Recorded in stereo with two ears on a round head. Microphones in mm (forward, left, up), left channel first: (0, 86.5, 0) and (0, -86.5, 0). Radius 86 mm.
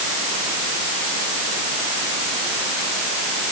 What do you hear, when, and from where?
Only background noise.